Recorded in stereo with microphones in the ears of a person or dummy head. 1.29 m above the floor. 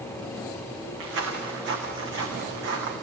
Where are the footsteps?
75° right (ahead or behind), 4.5 m; by 2.9 s 65° right (ahead or behind), 4.5 m.